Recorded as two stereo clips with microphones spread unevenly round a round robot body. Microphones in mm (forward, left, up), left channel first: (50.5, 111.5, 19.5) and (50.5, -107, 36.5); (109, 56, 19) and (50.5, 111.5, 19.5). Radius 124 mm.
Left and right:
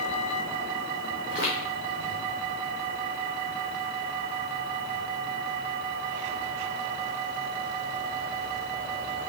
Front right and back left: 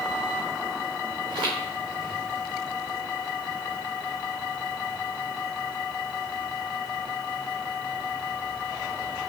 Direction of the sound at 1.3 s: 160° right.